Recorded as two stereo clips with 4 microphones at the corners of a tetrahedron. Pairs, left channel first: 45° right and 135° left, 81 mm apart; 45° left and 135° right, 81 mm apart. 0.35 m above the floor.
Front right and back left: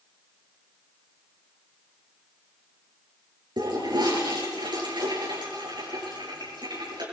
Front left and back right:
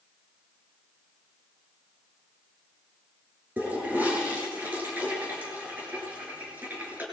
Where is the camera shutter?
I don't hear a camera shutter.